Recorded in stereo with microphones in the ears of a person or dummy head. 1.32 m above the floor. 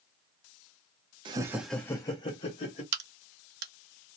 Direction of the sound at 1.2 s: 25° right (ahead or behind).